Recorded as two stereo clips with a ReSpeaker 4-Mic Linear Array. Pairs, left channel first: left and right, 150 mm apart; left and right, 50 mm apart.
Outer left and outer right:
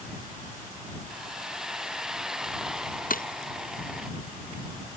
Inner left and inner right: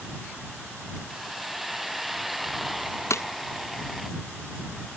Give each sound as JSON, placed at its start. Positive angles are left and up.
{"t": 1.1, "sound": "a hiss", "side_deg": -5}
{"t": 3.1, "sound": "breaking glass", "side_deg": 70}